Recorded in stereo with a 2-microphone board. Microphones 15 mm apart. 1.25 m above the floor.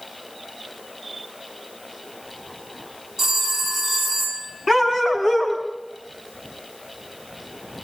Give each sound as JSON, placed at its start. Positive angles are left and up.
{"t": 3.2, "sound": "a phone ringing", "side_deg": -45, "distance_m": 6.0}
{"t": 4.7, "sound": "a dog barking", "side_deg": -40, "distance_m": 4.0}